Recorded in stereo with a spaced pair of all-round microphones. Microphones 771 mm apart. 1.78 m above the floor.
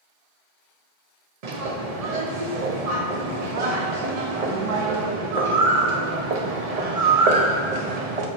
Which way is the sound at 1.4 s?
55° right (ahead or behind).